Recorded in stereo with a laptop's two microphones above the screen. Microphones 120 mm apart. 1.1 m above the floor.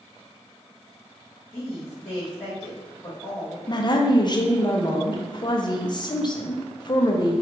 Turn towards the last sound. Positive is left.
turn(degrees=40)  # may be behind; listen again after turning